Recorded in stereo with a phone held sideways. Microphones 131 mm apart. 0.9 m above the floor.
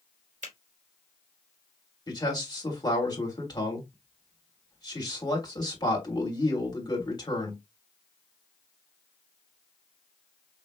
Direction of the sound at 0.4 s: 75° right (ahead or behind).